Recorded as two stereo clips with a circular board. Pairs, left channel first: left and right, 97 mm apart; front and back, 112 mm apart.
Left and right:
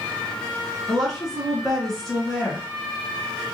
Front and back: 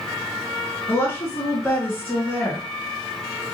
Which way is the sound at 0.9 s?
10° left.